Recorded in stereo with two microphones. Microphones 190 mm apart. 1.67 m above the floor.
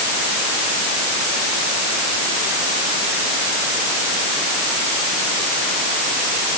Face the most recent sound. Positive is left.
No sound to turn to.